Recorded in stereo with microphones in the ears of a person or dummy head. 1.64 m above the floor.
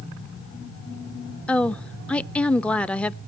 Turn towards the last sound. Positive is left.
turn(degrees=5)  # may be behind; listen again after turning